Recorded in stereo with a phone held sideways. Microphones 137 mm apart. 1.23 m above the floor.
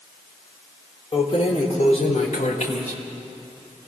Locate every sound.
1.1 s keys jangling: 35° left (ahead or behind), 2.0 m; by 3.9 s 80° left, 3.5 m